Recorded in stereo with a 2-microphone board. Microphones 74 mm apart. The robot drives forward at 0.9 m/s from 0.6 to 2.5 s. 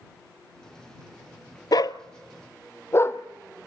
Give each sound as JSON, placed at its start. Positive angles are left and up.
{"t": 1.7, "sound": "a dog barking", "side_deg": 65, "distance_m": 0.5}